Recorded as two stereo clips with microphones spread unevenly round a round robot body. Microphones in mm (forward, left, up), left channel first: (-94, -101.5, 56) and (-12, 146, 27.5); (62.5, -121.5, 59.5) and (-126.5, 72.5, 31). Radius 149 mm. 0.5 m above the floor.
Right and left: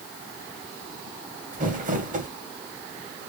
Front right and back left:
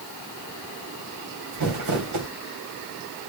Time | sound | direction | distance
1.5 | crumpling | 130° left | 3 m